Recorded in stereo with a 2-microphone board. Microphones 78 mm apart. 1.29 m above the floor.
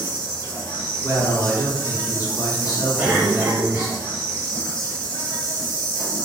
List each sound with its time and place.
0.0 s an insect: 70° left (ahead or behind), 1.1 m
1.0 s a man speaking: 55° left (ahead or behind), 1.2 m
3.0 s a cough: 25° right (ahead or behind), 0.8 m